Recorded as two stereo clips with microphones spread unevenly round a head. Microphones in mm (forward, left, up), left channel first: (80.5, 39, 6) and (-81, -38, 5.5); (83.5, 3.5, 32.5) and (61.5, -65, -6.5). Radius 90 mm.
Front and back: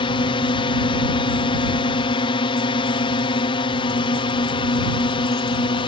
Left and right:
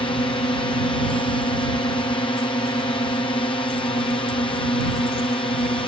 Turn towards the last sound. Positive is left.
turn(degrees=80)